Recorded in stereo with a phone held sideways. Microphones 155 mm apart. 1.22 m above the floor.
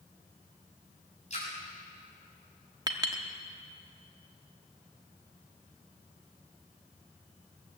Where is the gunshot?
I don't hear a gunshot.